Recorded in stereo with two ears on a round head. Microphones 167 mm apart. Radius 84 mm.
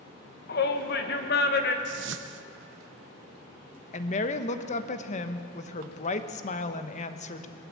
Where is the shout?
60° left (ahead or behind), 1.8 m.